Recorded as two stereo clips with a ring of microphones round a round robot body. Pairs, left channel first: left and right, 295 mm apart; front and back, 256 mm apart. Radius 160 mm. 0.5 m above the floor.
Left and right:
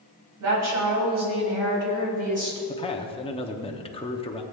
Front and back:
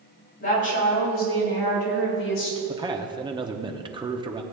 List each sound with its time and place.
0.4 s a woman speaking: 55° right, 4 m; by 2.6 s 20° right, 4 m
2.7 s a man speaking: 135° left, 1.0 m